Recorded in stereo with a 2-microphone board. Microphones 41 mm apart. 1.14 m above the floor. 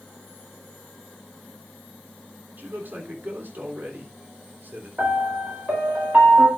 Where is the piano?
45° right (ahead or behind), 4 m.